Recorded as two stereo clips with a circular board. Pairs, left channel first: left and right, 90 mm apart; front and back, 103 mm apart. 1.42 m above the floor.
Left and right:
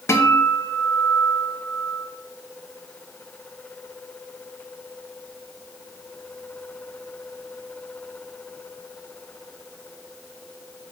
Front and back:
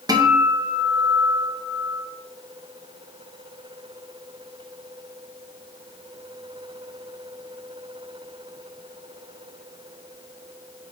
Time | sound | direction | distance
0.1 | a guitar | 140° left | 0.6 m